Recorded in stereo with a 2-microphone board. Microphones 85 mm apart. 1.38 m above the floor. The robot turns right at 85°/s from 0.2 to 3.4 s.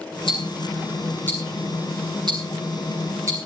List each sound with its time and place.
0.3 s ticking: 65° left (ahead or behind), 7 m; by 3.4 s 30° right (ahead or behind), 7 m